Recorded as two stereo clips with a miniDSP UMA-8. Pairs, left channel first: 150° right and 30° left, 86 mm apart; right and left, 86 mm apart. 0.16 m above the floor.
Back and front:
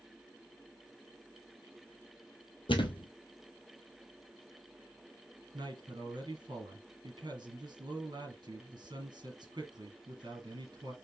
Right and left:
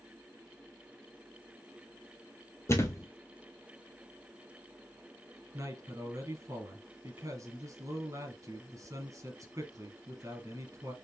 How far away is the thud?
About 0.8 m.